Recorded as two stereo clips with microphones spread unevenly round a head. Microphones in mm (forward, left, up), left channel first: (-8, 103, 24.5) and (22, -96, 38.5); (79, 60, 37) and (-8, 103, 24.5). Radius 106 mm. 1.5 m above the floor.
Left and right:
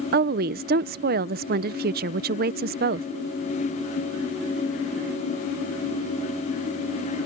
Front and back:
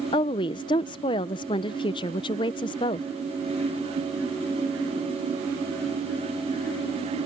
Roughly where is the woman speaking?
Ahead right.